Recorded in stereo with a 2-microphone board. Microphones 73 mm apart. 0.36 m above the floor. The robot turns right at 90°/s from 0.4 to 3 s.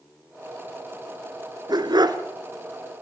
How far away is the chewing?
I don't hear chewing.